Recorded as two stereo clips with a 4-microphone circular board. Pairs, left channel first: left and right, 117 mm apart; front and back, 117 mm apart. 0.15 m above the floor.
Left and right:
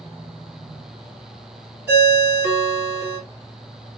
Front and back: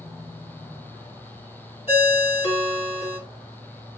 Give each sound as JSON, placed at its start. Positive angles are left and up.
{"t": 1.9, "sound": "a ringtone", "azimuth_deg": -20, "distance_m": 1.9}